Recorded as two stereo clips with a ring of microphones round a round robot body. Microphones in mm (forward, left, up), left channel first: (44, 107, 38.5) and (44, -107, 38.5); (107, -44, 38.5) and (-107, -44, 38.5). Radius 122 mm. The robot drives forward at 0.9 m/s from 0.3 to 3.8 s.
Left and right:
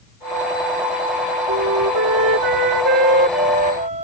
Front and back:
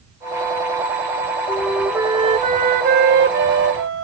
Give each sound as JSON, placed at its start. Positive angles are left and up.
{"t": 1.5, "sound": "a flute", "azimuth_deg": -75}